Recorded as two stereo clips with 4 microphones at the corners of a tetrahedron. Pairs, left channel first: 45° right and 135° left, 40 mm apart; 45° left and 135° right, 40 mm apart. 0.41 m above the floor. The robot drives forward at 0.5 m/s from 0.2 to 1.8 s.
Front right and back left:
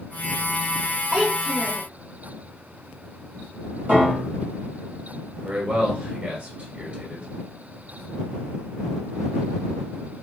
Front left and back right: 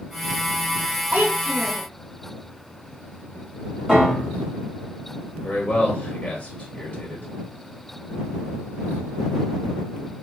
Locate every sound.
1.1 s a child speaking: 160° right, 0.7 m; by 1.9 s 170° right, 1.0 m
3.9 s a piano: 165° left, 2.5 m
5.4 s a man speaking: 90° left, 1.8 m